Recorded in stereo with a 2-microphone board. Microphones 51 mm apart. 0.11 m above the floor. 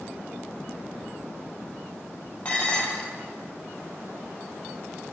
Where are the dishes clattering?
25° left (ahead or behind), 2.0 m.